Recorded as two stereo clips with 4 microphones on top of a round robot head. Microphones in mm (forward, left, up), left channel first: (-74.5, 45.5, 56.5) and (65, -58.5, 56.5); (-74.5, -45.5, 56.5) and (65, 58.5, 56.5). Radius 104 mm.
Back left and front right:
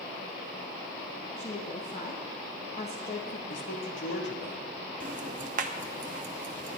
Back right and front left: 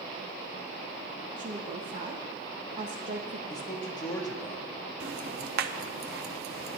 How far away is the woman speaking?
About 0.9 m.